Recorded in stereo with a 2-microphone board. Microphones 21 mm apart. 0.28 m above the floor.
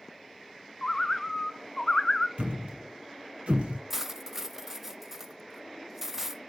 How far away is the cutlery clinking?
About 0.5 m.